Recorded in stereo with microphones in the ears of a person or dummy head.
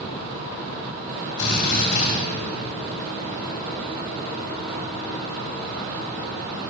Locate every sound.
1.4 s a drill: 60° left (ahead or behind), 3 m